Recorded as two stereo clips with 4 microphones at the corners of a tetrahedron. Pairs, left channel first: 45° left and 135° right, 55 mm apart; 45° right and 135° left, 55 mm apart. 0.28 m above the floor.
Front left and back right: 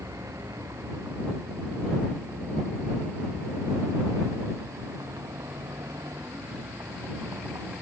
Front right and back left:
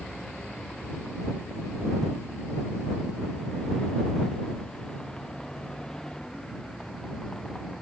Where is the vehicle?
125° right.